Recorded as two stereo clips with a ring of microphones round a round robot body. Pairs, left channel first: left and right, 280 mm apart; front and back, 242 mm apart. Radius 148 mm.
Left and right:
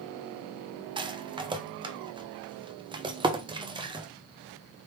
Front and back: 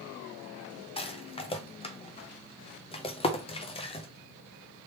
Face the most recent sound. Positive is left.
turn(degrees=-35)